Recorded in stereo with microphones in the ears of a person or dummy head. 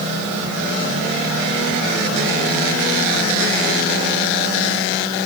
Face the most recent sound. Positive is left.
No sound to turn to.